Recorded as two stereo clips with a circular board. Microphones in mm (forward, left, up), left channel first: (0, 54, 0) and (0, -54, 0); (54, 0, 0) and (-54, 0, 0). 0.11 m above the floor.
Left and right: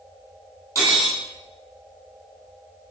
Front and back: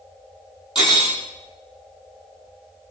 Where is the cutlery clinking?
30° right, 1.9 m.